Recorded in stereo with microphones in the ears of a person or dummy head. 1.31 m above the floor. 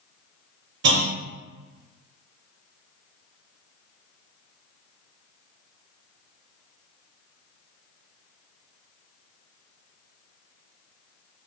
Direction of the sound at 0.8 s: 55° right (ahead or behind).